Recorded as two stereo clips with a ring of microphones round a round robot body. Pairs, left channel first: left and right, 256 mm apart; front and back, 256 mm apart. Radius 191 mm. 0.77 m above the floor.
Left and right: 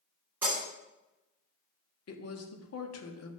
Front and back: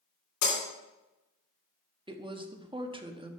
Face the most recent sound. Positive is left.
turn(degrees=110)